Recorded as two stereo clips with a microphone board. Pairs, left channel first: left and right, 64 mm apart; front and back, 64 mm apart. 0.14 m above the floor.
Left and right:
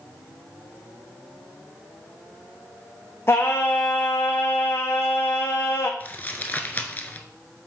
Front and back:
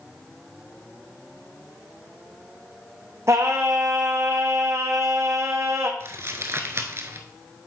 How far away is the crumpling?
About 0.9 m.